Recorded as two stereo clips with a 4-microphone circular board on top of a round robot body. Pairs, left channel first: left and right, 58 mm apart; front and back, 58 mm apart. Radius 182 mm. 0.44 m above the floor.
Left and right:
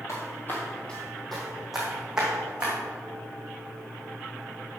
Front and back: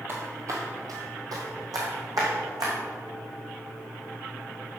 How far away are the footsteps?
About 1.2 m.